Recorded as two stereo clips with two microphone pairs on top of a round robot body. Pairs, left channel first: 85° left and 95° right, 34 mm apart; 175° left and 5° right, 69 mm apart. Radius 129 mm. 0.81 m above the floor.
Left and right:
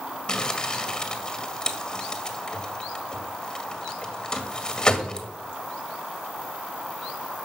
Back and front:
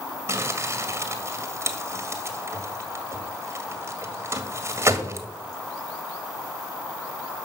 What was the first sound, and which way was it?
Crumpling, 30° left.